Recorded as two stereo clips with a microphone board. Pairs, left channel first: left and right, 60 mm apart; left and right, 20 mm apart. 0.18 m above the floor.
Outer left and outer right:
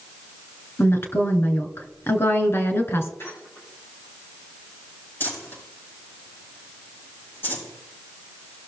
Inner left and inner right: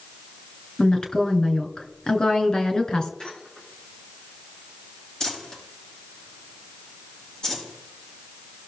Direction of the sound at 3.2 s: 45° left (ahead or behind).